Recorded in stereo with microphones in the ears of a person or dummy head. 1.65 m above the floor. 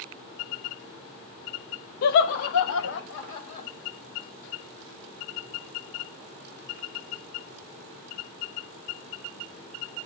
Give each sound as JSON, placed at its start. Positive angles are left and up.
{"t": 2.0, "sound": "laughter", "side_deg": 60, "distance_m": 0.5}